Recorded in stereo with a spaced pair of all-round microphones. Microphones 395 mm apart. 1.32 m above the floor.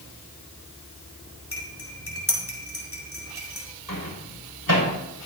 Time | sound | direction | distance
1.5 | cutlery clinking | 35° left (ahead or behind) | 3.5 m
3.9 | a microwave | 70° left (ahead or behind) | 6 m